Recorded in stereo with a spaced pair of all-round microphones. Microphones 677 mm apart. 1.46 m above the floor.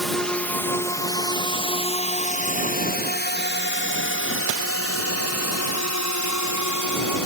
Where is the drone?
Centre (ahead or behind); by 7.3 s 25° left (ahead or behind).